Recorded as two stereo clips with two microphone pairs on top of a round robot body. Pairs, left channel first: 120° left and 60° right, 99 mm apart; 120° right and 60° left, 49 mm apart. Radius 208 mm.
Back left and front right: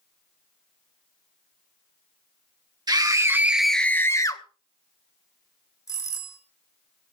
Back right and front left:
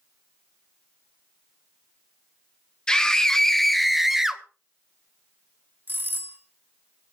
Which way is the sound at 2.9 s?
45° right.